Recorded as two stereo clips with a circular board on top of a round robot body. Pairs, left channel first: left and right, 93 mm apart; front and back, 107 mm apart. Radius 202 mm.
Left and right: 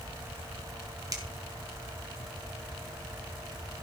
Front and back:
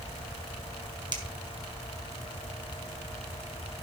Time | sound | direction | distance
1.1 | a finger snap | 140° right | 2.5 m